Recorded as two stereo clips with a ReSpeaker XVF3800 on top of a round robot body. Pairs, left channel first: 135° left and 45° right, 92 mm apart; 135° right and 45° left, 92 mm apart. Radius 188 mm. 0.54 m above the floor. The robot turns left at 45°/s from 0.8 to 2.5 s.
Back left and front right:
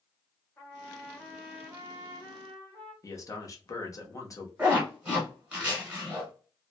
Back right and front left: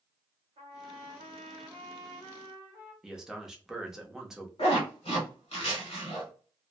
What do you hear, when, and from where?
0.6 s a trumpet: 60° left, 0.6 m; by 2.9 s 15° right, 0.6 m
3.0 s a man speaking: 125° left, 1.0 m
4.6 s a zipper: 120° right, 1.1 m